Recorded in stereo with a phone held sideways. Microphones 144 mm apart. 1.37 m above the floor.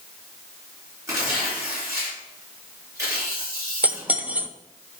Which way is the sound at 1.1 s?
20° right (ahead or behind).